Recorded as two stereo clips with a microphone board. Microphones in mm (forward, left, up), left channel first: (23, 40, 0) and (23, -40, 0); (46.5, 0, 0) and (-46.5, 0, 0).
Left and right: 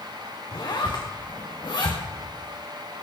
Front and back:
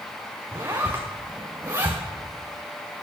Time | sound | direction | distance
0.5 | a zipper | 120° left | 3 m